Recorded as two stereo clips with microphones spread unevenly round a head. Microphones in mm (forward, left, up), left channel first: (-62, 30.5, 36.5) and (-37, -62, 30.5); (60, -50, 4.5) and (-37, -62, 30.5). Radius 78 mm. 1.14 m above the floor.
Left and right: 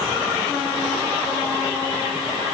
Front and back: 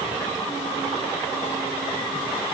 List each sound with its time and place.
Only background noise.